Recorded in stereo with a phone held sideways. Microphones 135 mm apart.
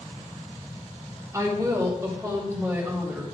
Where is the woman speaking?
25° right (ahead or behind), 2.5 m; by 3.2 s 20° right (ahead or behind), 3.5 m.